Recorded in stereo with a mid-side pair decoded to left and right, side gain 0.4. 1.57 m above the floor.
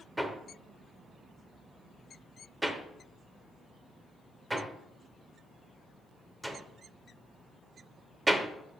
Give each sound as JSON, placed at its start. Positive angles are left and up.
{"t": 0.2, "sound": "hammering", "azimuth_deg": -10, "distance_m": 1.0}